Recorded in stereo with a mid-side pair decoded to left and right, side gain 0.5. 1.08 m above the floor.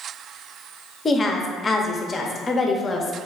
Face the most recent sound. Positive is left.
turn(degrees=30)